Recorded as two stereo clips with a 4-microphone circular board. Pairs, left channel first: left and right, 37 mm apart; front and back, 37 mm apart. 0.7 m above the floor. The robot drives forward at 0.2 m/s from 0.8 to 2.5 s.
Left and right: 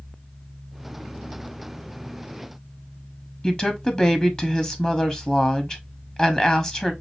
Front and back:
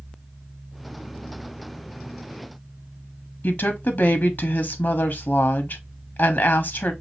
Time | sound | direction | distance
3.4 | a woman speaking | 35° left | 0.9 m